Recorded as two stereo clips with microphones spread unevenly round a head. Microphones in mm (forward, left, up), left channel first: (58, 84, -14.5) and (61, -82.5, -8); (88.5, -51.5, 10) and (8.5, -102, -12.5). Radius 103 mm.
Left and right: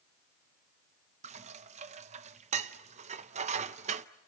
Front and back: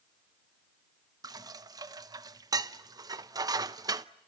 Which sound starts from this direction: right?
Dishes clattering, at 1.2 s.